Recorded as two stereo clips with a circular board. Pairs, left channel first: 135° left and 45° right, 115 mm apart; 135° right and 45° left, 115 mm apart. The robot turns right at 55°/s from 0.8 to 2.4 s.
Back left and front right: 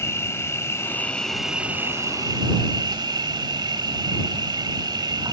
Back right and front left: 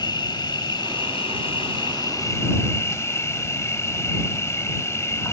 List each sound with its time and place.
0.0 s an insect: 165° right; by 5.3 s 75° right